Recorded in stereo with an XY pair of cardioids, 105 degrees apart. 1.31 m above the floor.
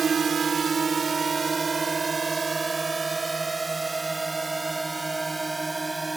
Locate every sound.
0.0 s a drone: 45° right; by 6.2 s 15° right